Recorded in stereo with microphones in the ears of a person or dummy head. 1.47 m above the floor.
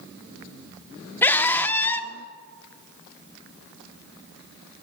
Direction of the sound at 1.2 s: 10° left (ahead or behind).